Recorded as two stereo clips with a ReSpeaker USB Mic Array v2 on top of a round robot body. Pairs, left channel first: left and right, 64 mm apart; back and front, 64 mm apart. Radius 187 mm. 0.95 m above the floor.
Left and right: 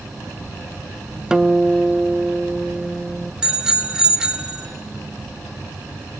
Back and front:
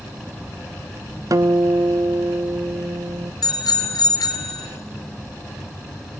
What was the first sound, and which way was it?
A guitar, 15° right.